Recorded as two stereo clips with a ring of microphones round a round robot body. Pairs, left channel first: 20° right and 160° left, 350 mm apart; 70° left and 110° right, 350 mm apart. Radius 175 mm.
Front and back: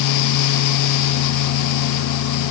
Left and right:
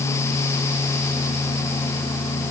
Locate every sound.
Only background noise.